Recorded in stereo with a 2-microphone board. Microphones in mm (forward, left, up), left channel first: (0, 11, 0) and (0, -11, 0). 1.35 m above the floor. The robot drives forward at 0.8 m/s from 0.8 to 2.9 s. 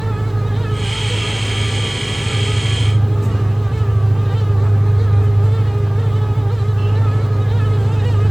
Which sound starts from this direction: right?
An engine running, at 0.0 s.